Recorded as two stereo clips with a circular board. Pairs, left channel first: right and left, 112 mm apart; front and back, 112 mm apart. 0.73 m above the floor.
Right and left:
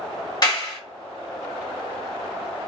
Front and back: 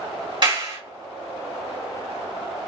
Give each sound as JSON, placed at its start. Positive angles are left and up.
{"t": 0.4, "sound": "a clap", "azimuth_deg": -140, "distance_m": 1.7}